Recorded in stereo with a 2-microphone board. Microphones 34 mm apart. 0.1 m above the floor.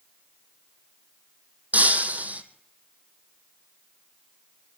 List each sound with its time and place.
1.7 s breaking glass: 55° right (ahead or behind), 1.7 m